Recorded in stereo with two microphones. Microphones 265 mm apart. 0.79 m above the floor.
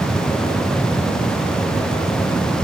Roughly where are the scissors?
No scissors in this recording.